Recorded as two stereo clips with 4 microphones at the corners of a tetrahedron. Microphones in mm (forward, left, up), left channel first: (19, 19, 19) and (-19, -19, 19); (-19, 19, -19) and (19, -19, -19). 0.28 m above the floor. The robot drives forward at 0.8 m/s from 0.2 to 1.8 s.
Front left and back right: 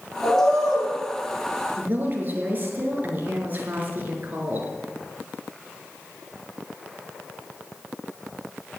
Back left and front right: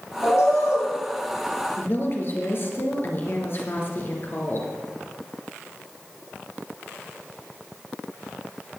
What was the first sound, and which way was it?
A bird, 125° left.